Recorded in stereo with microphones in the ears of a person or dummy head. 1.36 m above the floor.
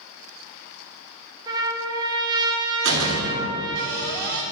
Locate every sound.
1.5 s a trumpet: 25° right (ahead or behind), 1.1 m
2.8 s a door slam: 80° right, 2.0 m